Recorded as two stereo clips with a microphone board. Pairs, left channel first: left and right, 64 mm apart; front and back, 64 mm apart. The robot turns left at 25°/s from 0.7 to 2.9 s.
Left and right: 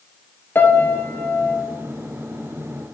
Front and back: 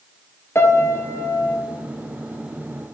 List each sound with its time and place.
0.6 s a piano: 40° left, 1.0 m; by 1.6 s 20° left, 1.0 m